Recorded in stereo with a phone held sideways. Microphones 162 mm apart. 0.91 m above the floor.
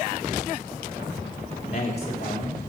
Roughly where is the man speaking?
Left.